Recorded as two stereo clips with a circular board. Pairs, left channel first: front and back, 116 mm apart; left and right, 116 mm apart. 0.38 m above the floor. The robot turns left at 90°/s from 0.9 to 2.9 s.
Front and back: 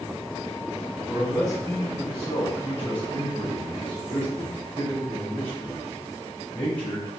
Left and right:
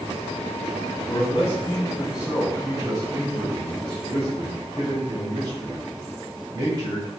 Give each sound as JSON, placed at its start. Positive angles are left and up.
{"t": 1.1, "sound": "a man speaking", "azimuth_deg": 90, "distance_m": 1.4}